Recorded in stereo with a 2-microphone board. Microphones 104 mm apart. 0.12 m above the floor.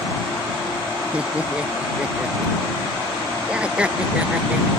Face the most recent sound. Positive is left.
turn(degrees=-10)  # may be behind; listen again after turning